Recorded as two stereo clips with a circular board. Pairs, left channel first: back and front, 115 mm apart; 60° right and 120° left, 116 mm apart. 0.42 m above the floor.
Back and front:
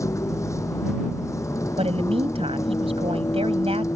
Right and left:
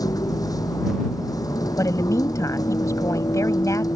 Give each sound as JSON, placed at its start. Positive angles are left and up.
{"t": 0.0, "sound": "a vehicle", "azimuth_deg": -115}
{"t": 1.8, "sound": "a woman speaking", "azimuth_deg": -5}